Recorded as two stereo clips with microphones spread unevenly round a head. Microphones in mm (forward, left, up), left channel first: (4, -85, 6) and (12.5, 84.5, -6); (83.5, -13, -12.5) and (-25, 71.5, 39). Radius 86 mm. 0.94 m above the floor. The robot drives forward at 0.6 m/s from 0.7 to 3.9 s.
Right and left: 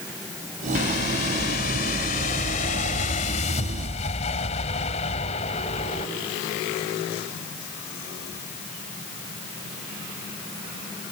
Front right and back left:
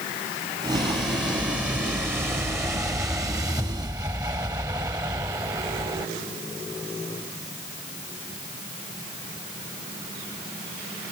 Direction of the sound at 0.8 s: 125° right.